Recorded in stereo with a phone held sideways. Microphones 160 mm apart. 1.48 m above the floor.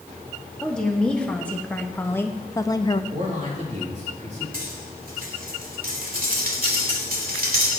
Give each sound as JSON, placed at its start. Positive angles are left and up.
{"t": 0.6, "sound": "a woman speaking", "side_deg": 5, "distance_m": 2.0}
{"t": 3.1, "sound": "a man speaking", "side_deg": -45, "distance_m": 3.5}
{"t": 4.5, "sound": "cutlery clinking", "side_deg": -65, "distance_m": 2.5}